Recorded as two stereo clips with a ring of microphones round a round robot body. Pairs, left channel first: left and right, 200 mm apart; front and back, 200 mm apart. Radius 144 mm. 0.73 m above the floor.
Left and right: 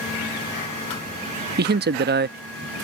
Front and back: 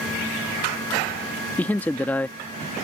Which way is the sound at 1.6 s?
80° right.